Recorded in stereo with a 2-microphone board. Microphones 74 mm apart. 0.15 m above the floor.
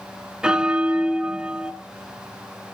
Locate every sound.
0.4 s a bell: 10° right (ahead or behind), 0.6 m